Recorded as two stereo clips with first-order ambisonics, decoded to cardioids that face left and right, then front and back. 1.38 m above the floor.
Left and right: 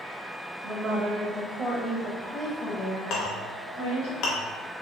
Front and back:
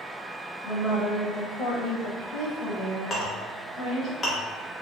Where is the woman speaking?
40° right, 1.2 m; by 4.1 s 85° left, 1.1 m.